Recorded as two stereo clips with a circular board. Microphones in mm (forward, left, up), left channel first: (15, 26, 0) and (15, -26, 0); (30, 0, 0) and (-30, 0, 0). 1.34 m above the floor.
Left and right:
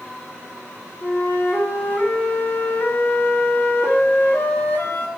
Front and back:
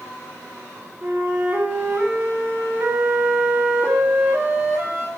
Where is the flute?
120° left, 1.1 m.